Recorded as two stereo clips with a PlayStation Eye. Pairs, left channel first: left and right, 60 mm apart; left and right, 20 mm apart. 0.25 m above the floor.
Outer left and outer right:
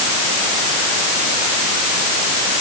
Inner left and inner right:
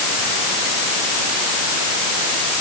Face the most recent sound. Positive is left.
No sound to turn to.